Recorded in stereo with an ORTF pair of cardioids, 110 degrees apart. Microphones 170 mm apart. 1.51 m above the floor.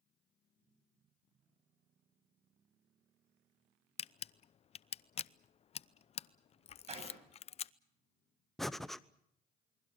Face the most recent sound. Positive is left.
turn(degrees=0)